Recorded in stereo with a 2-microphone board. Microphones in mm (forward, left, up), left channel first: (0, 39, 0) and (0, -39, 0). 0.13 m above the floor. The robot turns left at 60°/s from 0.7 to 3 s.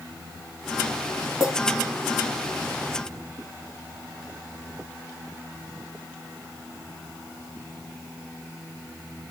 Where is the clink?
5° right (ahead or behind), 2.5 m; by 1.5 s 5° left (ahead or behind), 2.5 m.